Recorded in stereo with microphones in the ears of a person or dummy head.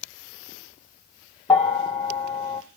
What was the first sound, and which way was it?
A bell, centre (ahead or behind).